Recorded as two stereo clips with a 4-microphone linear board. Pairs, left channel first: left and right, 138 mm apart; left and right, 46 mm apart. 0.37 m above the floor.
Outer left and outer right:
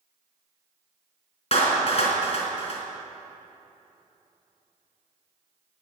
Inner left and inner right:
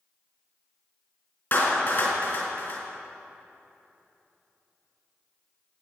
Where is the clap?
45° left (ahead or behind), 3.5 m.